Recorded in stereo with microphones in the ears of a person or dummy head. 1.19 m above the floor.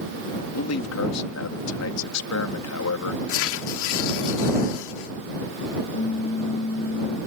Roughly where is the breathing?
No breathing in this recording.